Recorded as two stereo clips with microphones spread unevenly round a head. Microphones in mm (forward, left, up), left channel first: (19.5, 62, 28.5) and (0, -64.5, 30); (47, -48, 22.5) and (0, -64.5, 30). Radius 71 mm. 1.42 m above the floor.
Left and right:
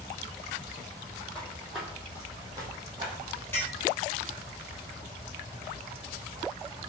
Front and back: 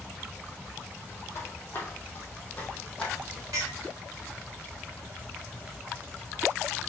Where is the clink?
155° left, 1.7 m.